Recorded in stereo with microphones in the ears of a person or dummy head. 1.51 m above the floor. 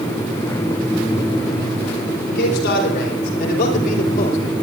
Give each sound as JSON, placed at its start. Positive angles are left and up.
{"t": 2.3, "sound": "a man speaking", "side_deg": 60, "distance_m": 5.5}